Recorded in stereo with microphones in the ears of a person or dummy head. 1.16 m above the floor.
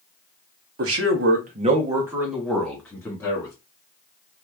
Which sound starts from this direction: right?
A man speaking, at 0.8 s.